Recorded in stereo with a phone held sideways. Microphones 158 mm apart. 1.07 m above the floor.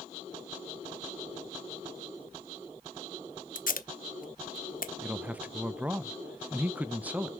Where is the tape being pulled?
65° left (ahead or behind), 0.9 m.